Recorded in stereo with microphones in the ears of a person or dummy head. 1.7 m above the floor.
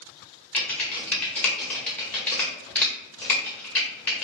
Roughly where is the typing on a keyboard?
Centre.